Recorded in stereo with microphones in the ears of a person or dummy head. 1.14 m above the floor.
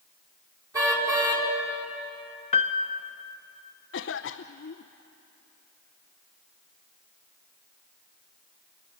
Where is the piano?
30° left (ahead or behind), 0.7 m.